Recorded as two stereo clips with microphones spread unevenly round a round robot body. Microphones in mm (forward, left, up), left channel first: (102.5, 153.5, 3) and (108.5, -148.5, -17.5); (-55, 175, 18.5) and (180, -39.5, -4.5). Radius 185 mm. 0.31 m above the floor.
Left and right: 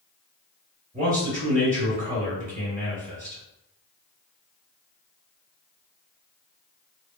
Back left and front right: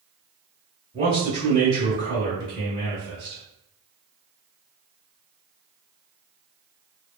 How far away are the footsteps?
I don't hear footsteps.